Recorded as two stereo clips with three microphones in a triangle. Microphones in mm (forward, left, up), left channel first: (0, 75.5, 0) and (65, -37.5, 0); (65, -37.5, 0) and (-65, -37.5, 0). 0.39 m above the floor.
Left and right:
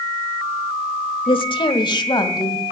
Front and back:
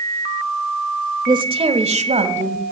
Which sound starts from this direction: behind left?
A woman speaking, at 1.3 s.